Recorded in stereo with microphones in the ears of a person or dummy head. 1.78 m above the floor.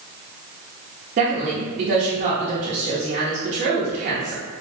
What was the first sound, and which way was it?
A woman speaking, 30° right (ahead or behind).